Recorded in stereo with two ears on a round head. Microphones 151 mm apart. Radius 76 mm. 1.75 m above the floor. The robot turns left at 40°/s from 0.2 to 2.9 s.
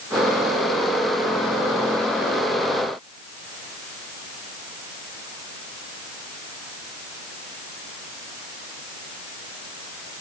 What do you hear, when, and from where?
Only background noise.